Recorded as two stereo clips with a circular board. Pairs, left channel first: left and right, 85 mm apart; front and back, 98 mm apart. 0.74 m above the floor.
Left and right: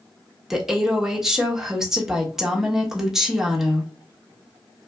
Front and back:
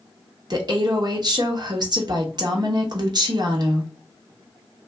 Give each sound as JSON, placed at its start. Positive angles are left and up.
{"t": 0.5, "sound": "a woman speaking", "azimuth_deg": -170, "distance_m": 1.0}